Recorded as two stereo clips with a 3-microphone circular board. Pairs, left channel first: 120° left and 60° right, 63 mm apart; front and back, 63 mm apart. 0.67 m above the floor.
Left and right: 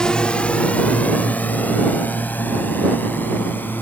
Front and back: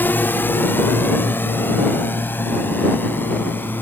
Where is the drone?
45° left; by 3.8 s 60° left.